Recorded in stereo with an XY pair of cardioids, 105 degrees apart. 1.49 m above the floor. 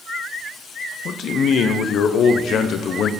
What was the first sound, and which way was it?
A man speaking, 65° left.